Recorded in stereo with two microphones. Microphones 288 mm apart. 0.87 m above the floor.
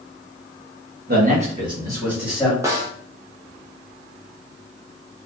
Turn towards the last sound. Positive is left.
turn(degrees=-10)  # may be behind; listen again after turning